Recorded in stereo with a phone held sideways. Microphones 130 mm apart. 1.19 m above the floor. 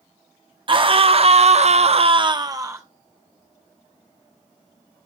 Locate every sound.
0.7 s a scream: 40° right (ahead or behind), 0.8 m; by 2.8 s 20° right (ahead or behind), 0.7 m